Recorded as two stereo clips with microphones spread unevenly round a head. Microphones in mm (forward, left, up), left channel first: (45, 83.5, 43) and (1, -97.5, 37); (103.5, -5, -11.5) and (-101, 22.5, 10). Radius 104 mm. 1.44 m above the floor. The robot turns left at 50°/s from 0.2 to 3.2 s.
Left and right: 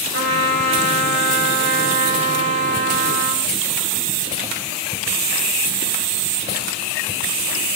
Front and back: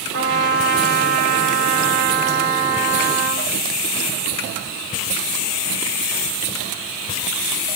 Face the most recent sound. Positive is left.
turn(degrees=95)